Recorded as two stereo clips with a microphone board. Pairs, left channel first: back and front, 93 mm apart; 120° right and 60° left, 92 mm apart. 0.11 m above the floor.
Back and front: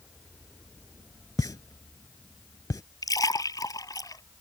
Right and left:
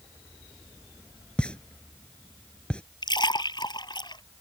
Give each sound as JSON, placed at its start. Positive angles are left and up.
{"t": 1.4, "sound": "a pop", "azimuth_deg": 170}
{"t": 3.0, "sound": "a splash", "azimuth_deg": -140}